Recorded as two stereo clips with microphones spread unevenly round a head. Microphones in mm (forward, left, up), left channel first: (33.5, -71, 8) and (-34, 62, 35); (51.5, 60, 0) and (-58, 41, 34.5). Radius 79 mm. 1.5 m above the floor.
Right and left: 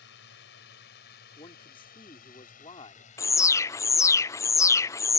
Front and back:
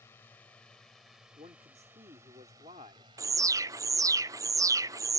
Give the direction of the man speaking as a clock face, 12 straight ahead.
4 o'clock.